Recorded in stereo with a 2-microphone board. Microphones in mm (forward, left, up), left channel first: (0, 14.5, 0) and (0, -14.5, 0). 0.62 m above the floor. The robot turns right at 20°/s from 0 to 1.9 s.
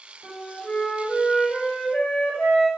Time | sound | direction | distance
0.2 | a flute | 45° left | 1.2 m